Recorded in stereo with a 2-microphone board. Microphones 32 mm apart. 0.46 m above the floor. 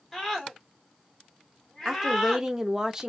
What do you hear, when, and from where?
0.1 s a scream: 10° left (ahead or behind), 1.4 m
1.9 s a woman speaking: 20° right (ahead or behind), 0.7 m